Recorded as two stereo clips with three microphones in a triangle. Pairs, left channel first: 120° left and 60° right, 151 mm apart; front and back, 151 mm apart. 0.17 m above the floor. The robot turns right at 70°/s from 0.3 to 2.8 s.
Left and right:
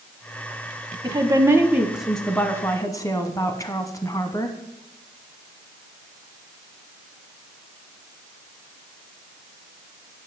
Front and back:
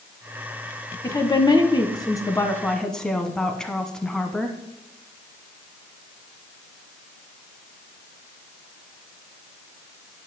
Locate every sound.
1.0 s a woman speaking: 40° right, 1.1 m; by 4.6 s 80° left, 1.1 m